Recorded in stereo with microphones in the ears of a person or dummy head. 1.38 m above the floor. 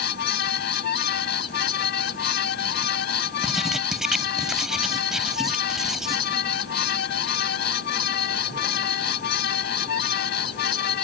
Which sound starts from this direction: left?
A fan, at 0.0 s.